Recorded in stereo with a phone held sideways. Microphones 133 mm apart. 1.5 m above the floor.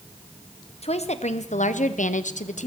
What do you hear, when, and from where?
0.8 s a woman speaking: 55° left (ahead or behind), 1.2 m; by 2.7 s 65° left (ahead or behind), 1.0 m